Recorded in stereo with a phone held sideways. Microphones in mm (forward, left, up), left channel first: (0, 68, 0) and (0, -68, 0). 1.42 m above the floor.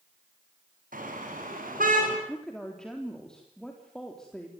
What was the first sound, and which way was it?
A car horn, 85° right.